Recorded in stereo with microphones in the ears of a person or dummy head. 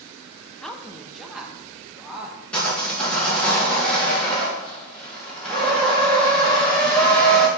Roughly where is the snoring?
No snoring in this recording.